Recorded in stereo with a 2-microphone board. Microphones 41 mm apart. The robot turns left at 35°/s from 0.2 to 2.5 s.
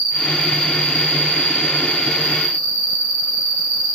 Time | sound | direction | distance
0.0 | an insect | 30° right (ahead or behind) | 1.3 m